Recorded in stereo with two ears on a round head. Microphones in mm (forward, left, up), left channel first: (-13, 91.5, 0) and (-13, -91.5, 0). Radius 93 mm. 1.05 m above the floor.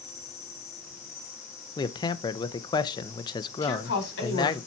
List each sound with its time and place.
0.0 s an insect: 15° left (ahead or behind), 2.5 m
1.8 s a man speaking: 20° left (ahead or behind), 0.6 m
3.6 s a woman speaking: 55° left (ahead or behind), 4 m